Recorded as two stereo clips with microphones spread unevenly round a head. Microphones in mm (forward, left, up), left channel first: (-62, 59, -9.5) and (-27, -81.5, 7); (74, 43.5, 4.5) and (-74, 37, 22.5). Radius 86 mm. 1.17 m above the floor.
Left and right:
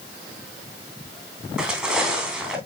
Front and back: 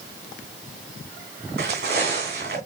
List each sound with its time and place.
1.6 s footsteps: 155° right, 3 m